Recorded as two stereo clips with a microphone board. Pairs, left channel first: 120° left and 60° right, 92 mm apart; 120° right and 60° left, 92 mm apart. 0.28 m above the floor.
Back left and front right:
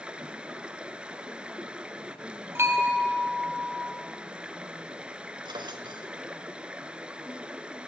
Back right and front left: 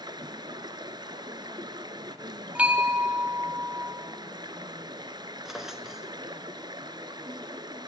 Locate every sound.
0.0 s running water: 20° left, 1.0 m
2.5 s a bell: 10° right, 2 m
5.5 s a drawer: 25° right, 1.3 m